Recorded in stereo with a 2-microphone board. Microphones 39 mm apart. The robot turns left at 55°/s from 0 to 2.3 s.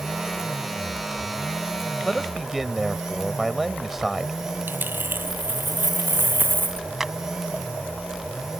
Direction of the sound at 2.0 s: 10° left (ahead or behind).